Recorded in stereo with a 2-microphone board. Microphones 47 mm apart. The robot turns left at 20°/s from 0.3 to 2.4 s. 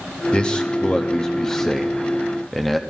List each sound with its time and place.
0.3 s a man speaking: 20° left (ahead or behind), 0.7 m; by 2.8 s 5° left (ahead or behind), 0.7 m